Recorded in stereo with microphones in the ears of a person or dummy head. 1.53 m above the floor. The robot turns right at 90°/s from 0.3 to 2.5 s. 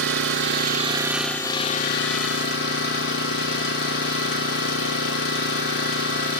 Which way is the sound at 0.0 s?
85° right.